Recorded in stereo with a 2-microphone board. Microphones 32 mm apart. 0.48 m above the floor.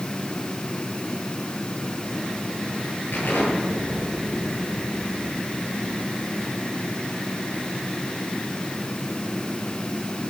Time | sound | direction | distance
3.1 | an explosion | 80° left | 7.5 m